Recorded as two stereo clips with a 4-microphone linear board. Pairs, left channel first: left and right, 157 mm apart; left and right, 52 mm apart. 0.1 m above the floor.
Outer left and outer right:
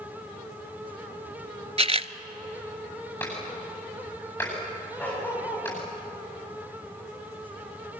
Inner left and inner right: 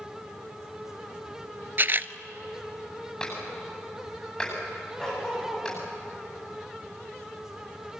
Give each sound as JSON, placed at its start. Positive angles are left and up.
{"t": 1.8, "sound": "a camera shutter", "side_deg": -40, "distance_m": 0.6}
{"t": 3.2, "sound": "a clap", "side_deg": 15, "distance_m": 10.0}
{"t": 5.0, "sound": "a dog barking", "side_deg": 10, "distance_m": 9.5}